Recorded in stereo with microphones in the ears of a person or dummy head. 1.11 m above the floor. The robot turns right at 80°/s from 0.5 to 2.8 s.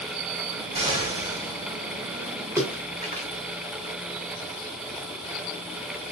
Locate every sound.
0.7 s an explosion: 150° right, 2.5 m; by 1.5 s 85° right, 2.5 m
2.6 s a splash: 15° right (ahead or behind), 0.8 m; by 3.3 s 35° right (ahead or behind), 0.8 m